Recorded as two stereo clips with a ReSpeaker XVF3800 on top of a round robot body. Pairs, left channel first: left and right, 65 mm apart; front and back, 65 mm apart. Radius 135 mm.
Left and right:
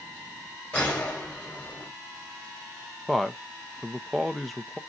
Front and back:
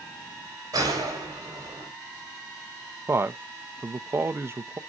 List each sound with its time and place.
0.7 s a gunshot: 155° left, 4.5 m
3.1 s a man speaking: 175° left, 0.8 m